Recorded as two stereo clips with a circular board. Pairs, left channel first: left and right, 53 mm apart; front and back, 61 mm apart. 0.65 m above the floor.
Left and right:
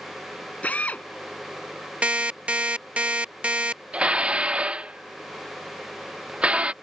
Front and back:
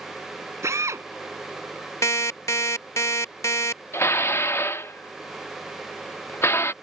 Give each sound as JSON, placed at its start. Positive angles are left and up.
{"t": 0.6, "sound": "a drill", "azimuth_deg": 150}
{"t": 2.0, "sound": "an alarm clock", "azimuth_deg": -25}
{"t": 3.9, "sound": "dishes clattering", "azimuth_deg": -25}